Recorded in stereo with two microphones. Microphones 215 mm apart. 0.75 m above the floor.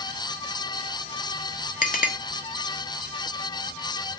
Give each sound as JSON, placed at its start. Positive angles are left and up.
{"t": 1.8, "sound": "a clink", "side_deg": 40, "distance_m": 1.2}